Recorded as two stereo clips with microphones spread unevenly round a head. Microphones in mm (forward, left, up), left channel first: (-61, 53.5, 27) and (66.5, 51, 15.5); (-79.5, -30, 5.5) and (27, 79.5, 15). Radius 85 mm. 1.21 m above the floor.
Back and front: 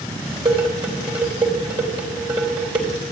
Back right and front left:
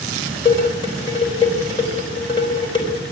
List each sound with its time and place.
0.5 s dishes clattering: 65° right, 3.5 m